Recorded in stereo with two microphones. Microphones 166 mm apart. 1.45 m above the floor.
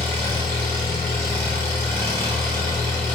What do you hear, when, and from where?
0.0 s an engine running: 15° left (ahead or behind), 1.2 m